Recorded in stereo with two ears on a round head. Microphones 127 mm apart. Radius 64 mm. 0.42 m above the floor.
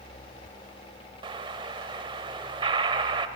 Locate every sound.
1.2 s an explosion: 35° right (ahead or behind), 1.1 m